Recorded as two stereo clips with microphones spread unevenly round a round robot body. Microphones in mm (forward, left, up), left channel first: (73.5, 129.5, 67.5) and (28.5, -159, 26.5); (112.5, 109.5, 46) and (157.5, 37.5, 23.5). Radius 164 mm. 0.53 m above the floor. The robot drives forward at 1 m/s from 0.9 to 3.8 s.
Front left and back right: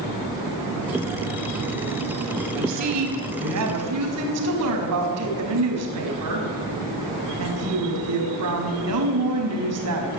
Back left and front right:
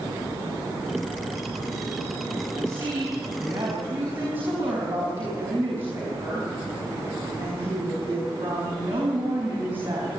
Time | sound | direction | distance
2.5 | a woman speaking | 120° right | 4.5 m